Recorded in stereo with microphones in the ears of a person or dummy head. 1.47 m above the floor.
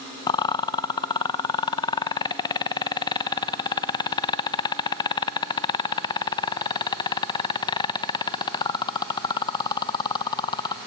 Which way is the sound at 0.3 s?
25° left (ahead or behind).